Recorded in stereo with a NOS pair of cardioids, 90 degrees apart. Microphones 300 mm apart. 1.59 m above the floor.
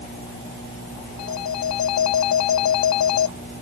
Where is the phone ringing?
65° left.